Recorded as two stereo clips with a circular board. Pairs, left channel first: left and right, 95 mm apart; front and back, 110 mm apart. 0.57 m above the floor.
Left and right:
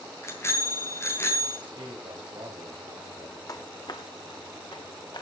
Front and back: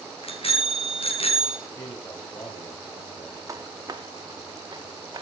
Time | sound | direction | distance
0.2 | a bicycle bell | 25° left | 4 m
1.7 | a man speaking | 55° right | 3 m
3.5 | footsteps | 130° left | 0.9 m